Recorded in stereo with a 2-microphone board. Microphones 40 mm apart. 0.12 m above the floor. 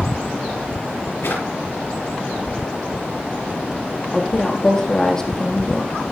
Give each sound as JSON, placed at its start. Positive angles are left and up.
{"t": 1.2, "sound": "a drawer", "side_deg": 65, "distance_m": 9.5}
{"t": 4.1, "sound": "a woman speaking", "side_deg": 20, "distance_m": 4.5}